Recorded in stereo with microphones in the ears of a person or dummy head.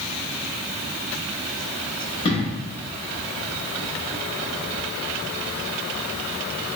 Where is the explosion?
25° left (ahead or behind), 1.4 m.